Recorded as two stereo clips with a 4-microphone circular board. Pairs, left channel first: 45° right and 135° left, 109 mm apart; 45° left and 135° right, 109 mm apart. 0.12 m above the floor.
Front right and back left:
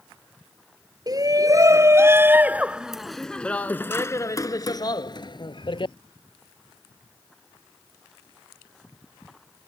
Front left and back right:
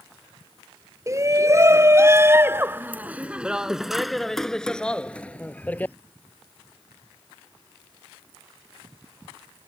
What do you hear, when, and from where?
1.1 s a shout: 175° left; by 6.0 s 25° right